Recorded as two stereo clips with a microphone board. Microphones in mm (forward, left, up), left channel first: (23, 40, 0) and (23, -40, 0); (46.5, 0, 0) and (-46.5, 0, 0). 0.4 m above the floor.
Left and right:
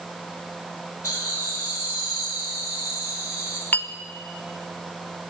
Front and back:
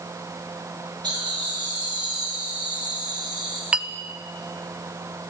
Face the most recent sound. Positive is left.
turn(degrees=120)